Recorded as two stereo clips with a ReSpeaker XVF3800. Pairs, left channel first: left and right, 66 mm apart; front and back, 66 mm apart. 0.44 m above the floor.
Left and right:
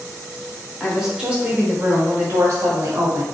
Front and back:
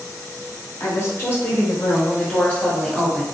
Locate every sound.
0.8 s a woman speaking: straight ahead, 1.1 m; by 3.2 s 75° right, 1.4 m